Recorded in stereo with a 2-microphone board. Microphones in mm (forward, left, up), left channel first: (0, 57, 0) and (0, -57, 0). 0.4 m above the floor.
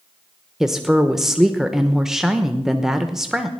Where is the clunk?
I don't hear a clunk.